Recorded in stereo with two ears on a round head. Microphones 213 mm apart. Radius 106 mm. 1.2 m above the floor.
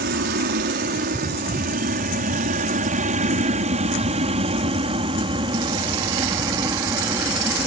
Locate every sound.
0.0 s an aircraft: 40° right (ahead or behind); by 7.7 s 10° right (ahead or behind)